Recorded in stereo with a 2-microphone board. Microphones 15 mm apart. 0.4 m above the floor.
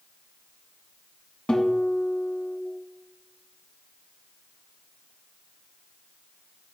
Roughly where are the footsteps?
I don't hear footsteps.